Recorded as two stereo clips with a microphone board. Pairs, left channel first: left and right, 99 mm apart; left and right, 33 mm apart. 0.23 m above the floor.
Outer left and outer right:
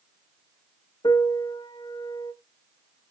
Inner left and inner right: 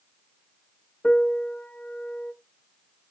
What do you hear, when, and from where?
1.0 s a piano: 50° left (ahead or behind), 0.5 m